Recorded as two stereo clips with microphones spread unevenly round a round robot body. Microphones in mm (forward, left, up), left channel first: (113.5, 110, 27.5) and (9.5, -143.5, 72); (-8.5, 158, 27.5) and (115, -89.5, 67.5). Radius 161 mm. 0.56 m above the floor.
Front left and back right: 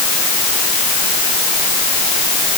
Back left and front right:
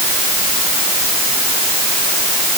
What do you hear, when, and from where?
Only background noise.